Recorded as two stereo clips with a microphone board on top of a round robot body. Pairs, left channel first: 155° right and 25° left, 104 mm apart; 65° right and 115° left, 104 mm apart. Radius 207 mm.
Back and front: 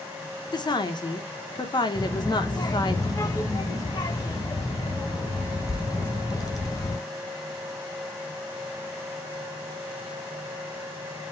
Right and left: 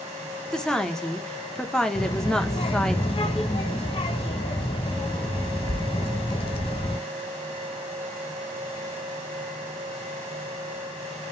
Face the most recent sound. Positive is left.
turn(degrees=-100)